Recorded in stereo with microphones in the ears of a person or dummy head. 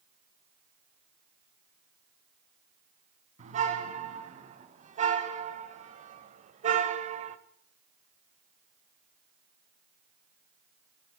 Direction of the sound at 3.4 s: 45° right (ahead or behind).